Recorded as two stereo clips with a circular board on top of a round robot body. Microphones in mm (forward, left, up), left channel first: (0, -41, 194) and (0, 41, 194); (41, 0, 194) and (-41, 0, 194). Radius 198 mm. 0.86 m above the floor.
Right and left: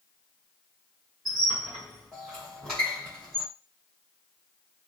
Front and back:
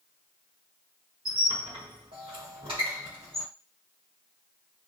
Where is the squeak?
Straight behind, 0.7 m.